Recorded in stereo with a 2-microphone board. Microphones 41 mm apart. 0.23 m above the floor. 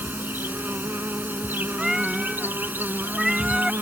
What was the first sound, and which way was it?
An insect, 70° right (ahead or behind).